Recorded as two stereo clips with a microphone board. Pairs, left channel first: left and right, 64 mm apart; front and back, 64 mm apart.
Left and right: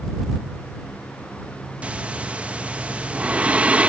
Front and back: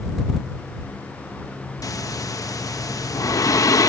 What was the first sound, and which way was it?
Breathing, 20° right.